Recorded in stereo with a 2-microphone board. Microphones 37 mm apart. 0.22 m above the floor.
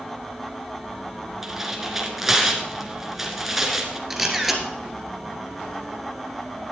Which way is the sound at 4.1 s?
10° right (ahead or behind).